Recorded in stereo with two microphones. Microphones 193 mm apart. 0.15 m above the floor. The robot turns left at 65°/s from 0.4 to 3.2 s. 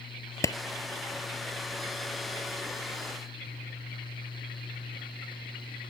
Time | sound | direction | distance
0.4 | a clap | 15° left (ahead or behind) | ?